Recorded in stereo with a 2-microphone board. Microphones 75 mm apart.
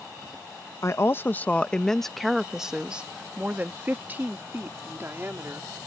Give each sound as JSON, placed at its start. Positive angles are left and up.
{"t": 0.8, "sound": "a woman speaking", "side_deg": 40}